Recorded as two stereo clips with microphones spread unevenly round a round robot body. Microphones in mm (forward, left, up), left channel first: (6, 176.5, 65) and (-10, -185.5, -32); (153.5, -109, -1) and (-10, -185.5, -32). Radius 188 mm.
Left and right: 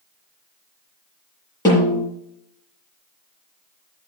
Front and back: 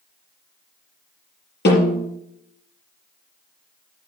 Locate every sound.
1.6 s a snare drum: 10° left, 6 m